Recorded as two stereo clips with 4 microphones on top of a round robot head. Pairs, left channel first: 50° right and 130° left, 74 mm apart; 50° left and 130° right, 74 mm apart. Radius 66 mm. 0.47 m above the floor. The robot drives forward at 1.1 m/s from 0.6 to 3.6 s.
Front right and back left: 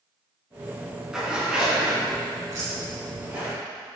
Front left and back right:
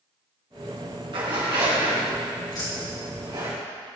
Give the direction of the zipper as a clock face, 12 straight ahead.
5 o'clock.